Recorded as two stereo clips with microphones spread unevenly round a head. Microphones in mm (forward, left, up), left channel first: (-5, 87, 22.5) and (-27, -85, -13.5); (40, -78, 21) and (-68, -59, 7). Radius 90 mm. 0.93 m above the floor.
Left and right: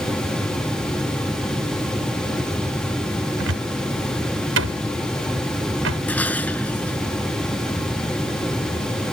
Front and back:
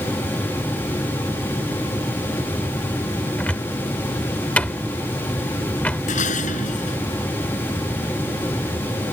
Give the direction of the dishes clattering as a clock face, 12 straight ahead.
12 o'clock.